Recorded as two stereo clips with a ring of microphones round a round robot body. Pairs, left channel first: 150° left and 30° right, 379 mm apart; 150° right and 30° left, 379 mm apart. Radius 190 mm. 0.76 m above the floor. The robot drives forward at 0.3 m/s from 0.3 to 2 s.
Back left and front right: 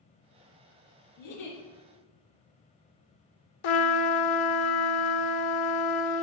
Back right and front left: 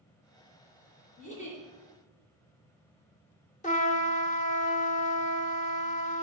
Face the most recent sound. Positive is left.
turn(degrees=135)